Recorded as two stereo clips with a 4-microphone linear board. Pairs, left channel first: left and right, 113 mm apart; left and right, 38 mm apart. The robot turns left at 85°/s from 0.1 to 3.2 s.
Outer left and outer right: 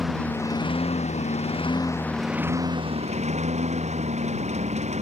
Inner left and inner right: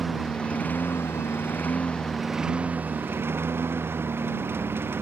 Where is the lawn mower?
Straight behind; by 5.0 s 80° right.